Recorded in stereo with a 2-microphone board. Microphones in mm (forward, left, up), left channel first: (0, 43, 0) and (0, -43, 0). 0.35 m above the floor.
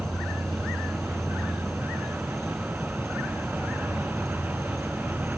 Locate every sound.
0.0 s an insect: 5° left (ahead or behind), 0.8 m